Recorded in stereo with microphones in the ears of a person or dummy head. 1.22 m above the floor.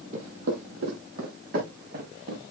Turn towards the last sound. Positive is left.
turn(degrees=-60)  # may be behind; listen again after turning